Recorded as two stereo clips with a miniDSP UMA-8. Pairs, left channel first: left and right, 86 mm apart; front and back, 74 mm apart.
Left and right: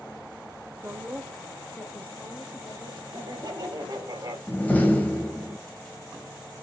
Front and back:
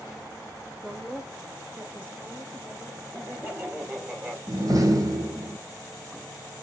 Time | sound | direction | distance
0.8 | a woman speaking | 85° right | 0.9 m
3.1 | laughter | 115° right | 2 m
4.5 | a door slam | 160° left | 1.3 m